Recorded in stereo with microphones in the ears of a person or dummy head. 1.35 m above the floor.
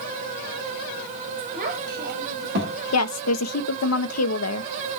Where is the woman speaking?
80° left, 0.9 m.